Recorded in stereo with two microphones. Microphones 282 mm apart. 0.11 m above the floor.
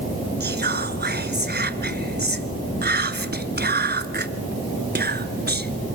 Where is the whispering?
35° right (ahead or behind), 1.3 m.